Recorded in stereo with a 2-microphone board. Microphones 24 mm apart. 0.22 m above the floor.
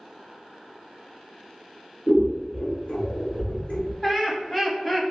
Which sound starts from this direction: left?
Scissors, at 2.1 s.